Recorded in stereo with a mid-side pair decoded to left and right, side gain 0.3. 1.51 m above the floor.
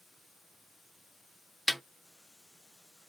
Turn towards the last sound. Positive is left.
turn(degrees=5)